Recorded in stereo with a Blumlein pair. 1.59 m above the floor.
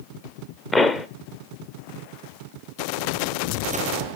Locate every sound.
0.7 s a pop: 15° left, 0.8 m